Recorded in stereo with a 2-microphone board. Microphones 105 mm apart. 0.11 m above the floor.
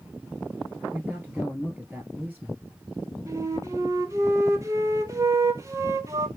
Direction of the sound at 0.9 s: 10° right (ahead or behind).